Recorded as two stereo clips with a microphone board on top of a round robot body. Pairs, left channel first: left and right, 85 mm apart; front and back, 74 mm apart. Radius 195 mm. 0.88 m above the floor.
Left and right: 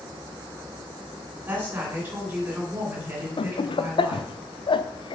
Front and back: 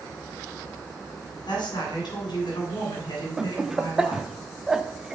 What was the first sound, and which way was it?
A woman speaking, 25° right.